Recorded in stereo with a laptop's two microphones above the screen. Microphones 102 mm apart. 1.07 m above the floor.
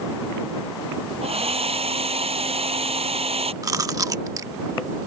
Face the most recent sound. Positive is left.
turn(degrees=-35)  # may be behind; listen again after turning